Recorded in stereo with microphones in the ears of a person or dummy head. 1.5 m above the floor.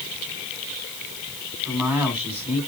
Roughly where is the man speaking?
Centre.